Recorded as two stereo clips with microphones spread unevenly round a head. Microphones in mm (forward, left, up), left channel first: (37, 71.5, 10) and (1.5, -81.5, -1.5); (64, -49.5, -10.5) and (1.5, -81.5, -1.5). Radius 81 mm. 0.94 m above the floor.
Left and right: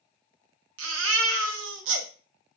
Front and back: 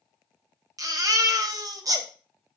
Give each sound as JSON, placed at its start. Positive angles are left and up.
{"t": 0.8, "sound": "a baby crying", "azimuth_deg": -115, "distance_m": 0.7}